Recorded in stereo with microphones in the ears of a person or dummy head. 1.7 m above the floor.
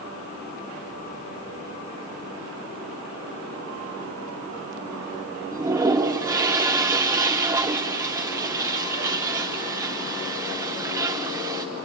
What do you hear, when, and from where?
5.5 s a toilet flushing: 20° right (ahead or behind), 0.7 m